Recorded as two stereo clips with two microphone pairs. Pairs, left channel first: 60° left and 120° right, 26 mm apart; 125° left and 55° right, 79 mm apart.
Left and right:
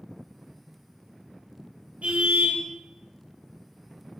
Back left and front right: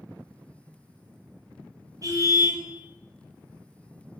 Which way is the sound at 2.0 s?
95° right.